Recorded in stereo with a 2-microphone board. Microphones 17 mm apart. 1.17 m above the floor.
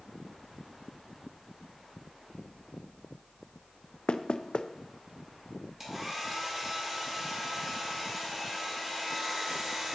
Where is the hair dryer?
20° right (ahead or behind), 2.5 m.